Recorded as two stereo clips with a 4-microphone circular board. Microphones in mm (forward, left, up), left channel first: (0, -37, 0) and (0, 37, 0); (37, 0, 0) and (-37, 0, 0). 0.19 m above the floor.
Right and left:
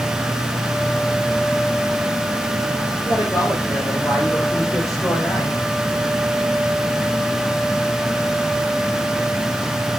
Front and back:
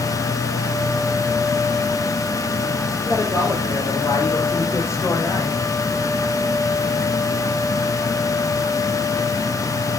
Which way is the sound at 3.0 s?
50° right.